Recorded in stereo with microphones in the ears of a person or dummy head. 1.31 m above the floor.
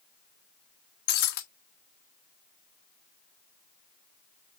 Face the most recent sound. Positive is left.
turn(degrees=55)  # may be behind; listen again after turning